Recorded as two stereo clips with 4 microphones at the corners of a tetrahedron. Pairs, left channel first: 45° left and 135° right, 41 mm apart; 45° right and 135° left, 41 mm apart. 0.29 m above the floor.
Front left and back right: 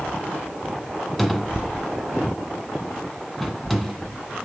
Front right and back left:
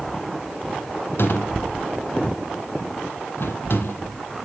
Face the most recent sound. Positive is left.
turn(degrees=-40)